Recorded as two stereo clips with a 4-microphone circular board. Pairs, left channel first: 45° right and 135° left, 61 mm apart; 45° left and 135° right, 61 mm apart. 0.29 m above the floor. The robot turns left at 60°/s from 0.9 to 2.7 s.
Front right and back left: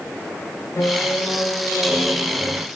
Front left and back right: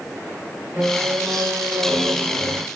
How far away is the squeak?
About 0.6 m.